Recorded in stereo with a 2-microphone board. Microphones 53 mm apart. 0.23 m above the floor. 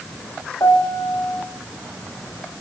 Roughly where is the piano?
Left.